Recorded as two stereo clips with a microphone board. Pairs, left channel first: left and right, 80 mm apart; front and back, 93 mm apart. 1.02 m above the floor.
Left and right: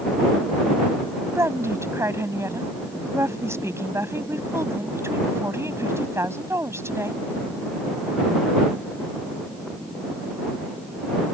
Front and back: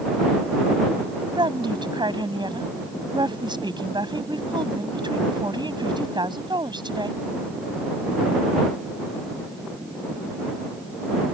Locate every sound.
1.4 s a woman speaking: 145° right